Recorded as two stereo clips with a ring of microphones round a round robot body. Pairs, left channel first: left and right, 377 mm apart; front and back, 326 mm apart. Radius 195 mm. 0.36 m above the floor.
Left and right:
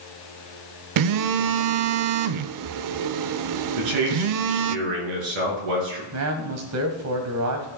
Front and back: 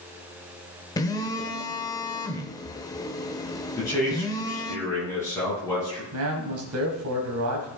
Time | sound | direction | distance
1.0 | a phone buzzing | 75° right | 0.6 m
3.8 | a man speaking | 80° right | 6 m
6.1 | a man speaking | 135° right | 2.5 m